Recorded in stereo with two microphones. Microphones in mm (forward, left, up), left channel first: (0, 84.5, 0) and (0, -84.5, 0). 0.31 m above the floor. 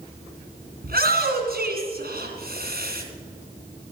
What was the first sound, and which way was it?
A shout, 65° right (ahead or behind).